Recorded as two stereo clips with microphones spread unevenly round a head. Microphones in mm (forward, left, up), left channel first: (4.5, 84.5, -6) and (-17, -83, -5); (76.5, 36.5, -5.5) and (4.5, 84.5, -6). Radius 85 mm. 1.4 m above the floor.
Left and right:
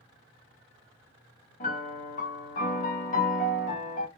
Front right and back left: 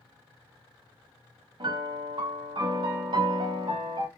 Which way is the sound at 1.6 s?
125° left.